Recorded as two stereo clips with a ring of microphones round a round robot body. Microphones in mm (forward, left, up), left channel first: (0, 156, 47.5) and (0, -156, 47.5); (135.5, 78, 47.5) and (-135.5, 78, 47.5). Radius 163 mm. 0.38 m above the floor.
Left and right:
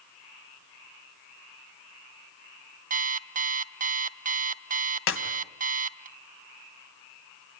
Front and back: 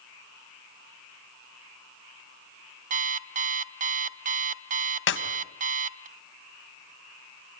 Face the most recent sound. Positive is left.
turn(degrees=40)